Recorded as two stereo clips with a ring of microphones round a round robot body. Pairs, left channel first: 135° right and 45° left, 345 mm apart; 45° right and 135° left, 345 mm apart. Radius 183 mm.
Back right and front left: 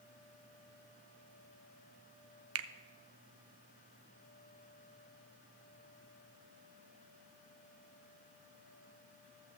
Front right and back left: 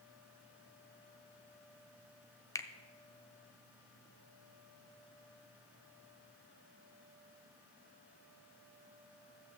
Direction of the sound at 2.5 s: 30° left.